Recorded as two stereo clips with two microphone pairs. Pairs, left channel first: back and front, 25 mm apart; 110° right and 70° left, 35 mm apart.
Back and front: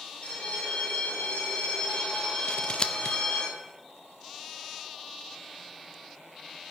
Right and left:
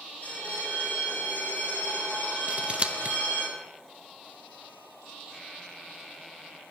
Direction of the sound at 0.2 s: 145° right.